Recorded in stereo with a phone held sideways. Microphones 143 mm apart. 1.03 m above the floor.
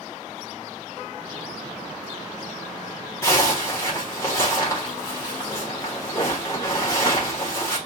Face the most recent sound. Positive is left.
turn(degrees=20)  # may be behind; listen again after turning